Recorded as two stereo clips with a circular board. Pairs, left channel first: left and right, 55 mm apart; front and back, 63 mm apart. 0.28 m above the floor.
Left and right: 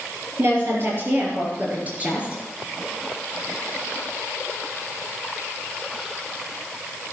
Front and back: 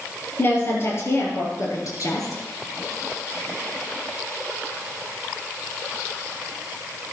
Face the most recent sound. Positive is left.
turn(degrees=-20)